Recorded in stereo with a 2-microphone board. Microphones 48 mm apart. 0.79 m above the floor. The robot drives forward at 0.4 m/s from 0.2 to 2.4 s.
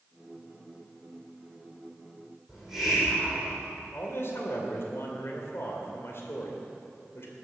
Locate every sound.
2.5 s a hiss: 5° right (ahead or behind), 5.5 m
3.9 s a man speaking: 55° left (ahead or behind), 2.5 m